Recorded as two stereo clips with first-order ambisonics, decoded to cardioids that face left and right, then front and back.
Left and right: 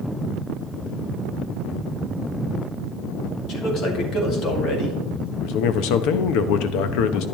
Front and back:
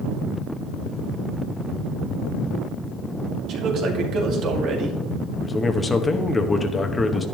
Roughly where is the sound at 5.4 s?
Left.